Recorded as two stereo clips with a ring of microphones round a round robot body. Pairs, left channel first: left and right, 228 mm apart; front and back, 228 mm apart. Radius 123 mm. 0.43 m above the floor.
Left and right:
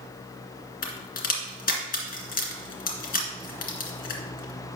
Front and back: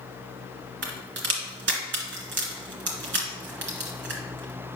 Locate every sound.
0.8 s a crack: 140° left, 1.9 m